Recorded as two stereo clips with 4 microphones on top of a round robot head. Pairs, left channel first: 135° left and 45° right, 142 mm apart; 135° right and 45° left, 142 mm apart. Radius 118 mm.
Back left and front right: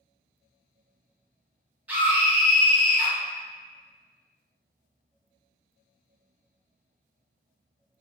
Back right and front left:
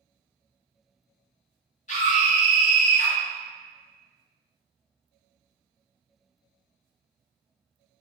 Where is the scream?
125° right, 1.6 m.